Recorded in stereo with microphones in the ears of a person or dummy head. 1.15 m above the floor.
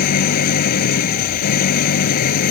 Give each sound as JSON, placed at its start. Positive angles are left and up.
{"t": 0.0, "sound": "an engine running", "side_deg": 55}